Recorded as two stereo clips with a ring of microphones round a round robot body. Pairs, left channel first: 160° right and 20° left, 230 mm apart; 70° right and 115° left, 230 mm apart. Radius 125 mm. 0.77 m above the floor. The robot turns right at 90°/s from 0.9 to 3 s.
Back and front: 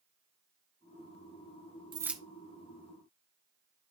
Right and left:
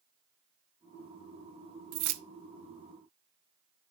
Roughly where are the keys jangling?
Left.